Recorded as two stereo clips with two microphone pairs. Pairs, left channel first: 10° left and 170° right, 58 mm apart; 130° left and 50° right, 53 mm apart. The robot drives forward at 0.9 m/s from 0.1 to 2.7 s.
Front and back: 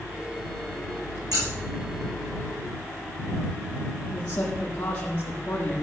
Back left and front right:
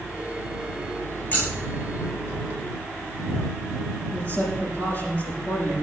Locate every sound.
1.3 s scissors: 170° right, 9.5 m
4.1 s a man speaking: 80° left, 7 m